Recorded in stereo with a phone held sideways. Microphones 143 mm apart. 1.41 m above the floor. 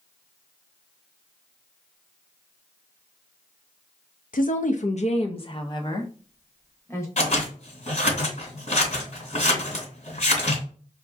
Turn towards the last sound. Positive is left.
turn(degrees=55)  # may be behind; listen again after turning